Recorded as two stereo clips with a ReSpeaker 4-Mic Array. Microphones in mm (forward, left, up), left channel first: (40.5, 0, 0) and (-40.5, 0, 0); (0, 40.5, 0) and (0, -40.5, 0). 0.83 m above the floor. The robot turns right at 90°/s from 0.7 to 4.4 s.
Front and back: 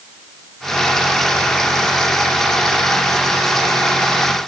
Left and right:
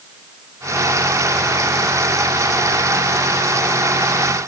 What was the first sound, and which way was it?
Only background noise.